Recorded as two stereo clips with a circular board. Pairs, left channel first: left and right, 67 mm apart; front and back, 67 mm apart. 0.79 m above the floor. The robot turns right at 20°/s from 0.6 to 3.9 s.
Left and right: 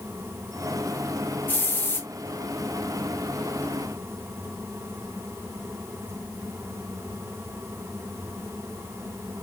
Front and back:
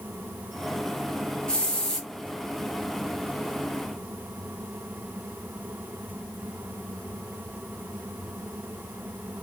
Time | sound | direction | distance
1.5 | a hiss | 65° left | 0.6 m